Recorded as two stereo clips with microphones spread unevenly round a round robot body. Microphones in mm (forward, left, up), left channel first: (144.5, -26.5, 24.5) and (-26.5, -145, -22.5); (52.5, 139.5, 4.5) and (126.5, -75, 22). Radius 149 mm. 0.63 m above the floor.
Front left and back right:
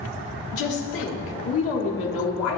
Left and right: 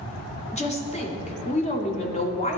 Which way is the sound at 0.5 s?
55° left.